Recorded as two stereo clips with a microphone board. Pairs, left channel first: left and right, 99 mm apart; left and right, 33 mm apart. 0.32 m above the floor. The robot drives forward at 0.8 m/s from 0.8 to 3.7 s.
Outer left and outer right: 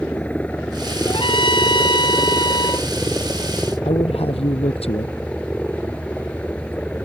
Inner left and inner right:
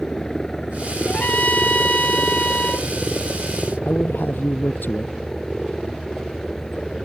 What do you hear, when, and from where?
0.0 s a helicopter: 15° left (ahead or behind)
1.1 s a trumpet: 55° left (ahead or behind); by 2.9 s 45° left (ahead or behind)
3.9 s a man speaking: 80° left